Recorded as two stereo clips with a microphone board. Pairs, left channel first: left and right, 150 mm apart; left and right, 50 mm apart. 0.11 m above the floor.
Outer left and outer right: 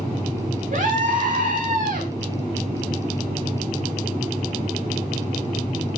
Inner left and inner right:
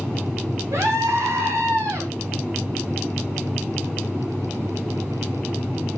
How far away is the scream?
About 8 m.